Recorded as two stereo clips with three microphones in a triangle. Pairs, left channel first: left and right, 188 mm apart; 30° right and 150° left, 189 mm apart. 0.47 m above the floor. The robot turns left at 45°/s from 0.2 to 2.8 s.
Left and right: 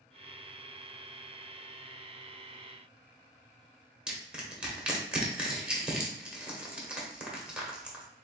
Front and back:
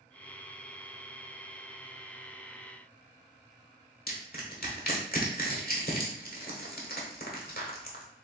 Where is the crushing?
5° right, 1.1 m.